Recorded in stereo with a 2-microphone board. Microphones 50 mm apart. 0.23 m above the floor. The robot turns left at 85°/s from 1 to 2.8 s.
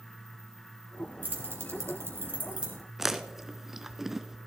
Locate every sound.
1.2 s keys jangling: 35° right (ahead or behind), 2.5 m; by 2.8 s 10° right (ahead or behind), 2.5 m
3.0 s chewing: 10° right (ahead or behind), 0.6 m